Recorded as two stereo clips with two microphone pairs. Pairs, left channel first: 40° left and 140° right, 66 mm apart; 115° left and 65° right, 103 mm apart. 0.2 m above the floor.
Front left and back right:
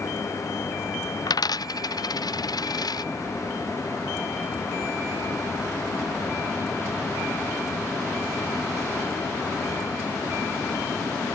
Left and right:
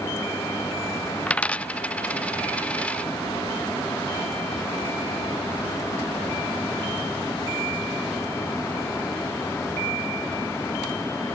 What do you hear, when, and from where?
1.3 s a dropped coin: 35° left